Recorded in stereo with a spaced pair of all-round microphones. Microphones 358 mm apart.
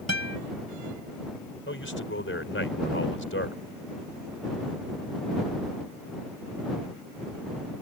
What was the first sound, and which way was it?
A guitar, 45° right (ahead or behind).